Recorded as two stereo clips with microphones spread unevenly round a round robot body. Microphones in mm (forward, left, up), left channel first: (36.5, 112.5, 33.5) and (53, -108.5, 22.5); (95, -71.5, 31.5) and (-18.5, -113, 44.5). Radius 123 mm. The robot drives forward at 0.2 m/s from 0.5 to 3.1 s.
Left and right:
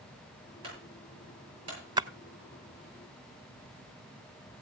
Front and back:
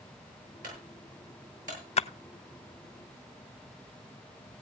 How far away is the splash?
About 0.5 m.